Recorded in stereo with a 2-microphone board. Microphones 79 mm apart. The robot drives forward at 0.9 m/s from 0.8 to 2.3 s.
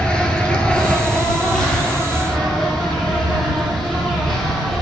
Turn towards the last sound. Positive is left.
turn(degrees=5)  # may be behind; listen again after turning